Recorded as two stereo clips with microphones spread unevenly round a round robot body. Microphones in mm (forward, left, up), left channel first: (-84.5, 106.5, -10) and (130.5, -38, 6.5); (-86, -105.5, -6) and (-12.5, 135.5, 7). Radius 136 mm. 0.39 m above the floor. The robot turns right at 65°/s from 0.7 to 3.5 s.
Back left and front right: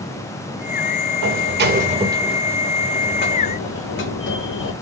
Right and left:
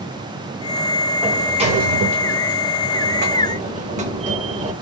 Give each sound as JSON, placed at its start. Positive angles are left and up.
{"t": 1.2, "sound": "a sliding door", "azimuth_deg": -15, "distance_m": 0.7}